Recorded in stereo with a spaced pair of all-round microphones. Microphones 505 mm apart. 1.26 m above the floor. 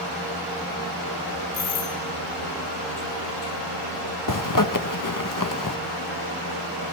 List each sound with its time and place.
1.5 s a doorbell: 70° right (ahead or behind), 6.5 m
4.3 s a zipper: 40° left (ahead or behind), 1.0 m